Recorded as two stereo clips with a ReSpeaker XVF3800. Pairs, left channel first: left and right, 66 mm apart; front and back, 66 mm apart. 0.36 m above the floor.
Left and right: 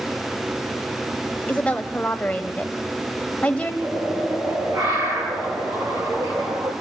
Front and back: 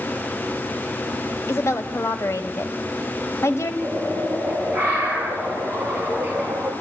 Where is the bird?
115° right, 7.5 m.